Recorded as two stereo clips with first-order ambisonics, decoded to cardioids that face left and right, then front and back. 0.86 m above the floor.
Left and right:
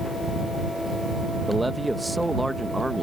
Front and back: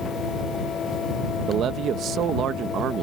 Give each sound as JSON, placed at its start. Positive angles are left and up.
{"t": 1.5, "sound": "a man speaking", "azimuth_deg": -175}